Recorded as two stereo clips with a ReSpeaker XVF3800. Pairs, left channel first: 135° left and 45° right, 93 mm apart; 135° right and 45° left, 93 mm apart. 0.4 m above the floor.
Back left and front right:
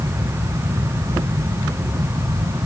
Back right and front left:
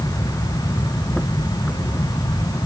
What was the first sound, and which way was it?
Only background noise.